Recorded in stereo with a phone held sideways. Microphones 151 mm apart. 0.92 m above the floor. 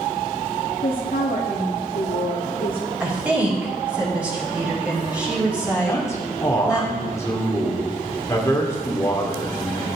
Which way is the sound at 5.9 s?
20° left (ahead or behind).